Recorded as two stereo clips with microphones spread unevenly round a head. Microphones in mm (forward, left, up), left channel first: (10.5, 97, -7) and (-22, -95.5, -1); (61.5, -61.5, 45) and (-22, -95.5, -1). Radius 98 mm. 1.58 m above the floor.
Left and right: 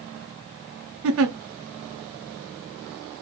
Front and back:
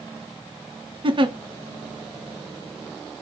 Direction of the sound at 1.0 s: 115° right.